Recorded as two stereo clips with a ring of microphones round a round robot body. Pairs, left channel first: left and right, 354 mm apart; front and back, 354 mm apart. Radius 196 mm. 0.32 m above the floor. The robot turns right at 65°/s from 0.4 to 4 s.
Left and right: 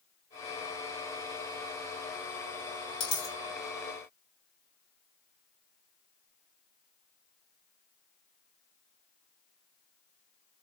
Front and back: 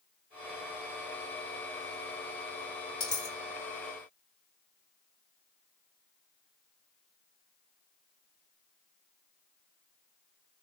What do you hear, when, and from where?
3.0 s a dropped coin: 55° left, 1.9 m; by 3.4 s 80° left, 1.9 m